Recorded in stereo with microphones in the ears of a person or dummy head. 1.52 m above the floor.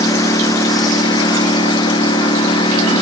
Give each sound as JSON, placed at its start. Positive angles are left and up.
{"t": 0.0, "sound": "a lawn mower", "side_deg": 20}